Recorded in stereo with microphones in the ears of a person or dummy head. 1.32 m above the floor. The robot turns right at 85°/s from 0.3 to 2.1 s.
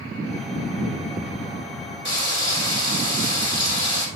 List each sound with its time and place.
2.0 s frying: 40° right (ahead or behind), 5.5 m; by 4.1 s 45° right (ahead or behind), 5.5 m